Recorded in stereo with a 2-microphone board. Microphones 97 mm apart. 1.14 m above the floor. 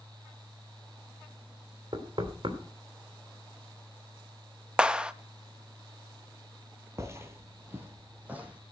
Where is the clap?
10° right (ahead or behind), 0.8 m.